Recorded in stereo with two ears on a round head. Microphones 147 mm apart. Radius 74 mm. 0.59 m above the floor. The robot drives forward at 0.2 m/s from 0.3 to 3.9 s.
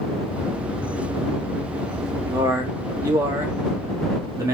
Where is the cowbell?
No cowbell in this recording.